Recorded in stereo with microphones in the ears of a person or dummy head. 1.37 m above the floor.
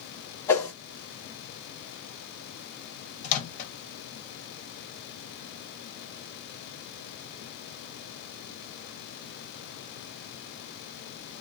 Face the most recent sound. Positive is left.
turn(degrees=45)  # may be behind; listen again after turning